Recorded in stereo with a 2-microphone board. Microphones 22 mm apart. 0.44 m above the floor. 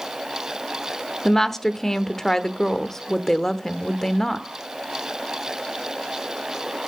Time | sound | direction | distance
1.2 | a woman speaking | 20° left (ahead or behind) | 0.9 m